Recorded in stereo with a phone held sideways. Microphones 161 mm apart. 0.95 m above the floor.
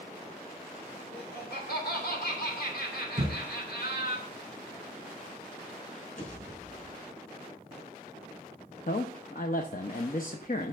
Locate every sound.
1.1 s laughter: 80° left, 3 m
3.2 s a thud: 45° right (ahead or behind), 5 m
6.2 s a pop: 55° left (ahead or behind), 4 m
8.9 s a man speaking: 60° left (ahead or behind), 0.7 m